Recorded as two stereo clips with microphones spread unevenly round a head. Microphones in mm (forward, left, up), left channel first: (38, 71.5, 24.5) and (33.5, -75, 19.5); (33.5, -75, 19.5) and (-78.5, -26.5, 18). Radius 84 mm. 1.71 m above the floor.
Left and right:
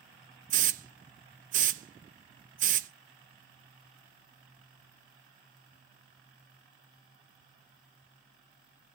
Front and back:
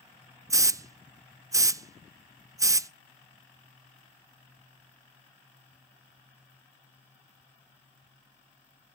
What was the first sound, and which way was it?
A hiss, 140° right.